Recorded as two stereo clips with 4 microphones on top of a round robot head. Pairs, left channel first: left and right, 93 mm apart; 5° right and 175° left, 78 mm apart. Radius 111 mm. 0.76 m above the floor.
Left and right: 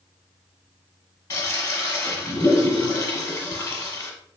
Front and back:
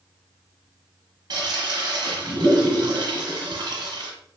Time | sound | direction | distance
1.3 | a toilet flushing | 150° left | 0.9 m